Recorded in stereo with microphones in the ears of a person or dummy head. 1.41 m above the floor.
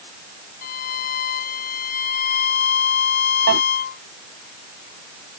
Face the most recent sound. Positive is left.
turn(degrees=-70)  # may be behind; listen again after turning